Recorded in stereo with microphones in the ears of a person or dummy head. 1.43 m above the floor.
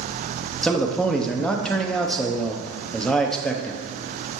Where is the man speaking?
5° left (ahead or behind), 0.7 m.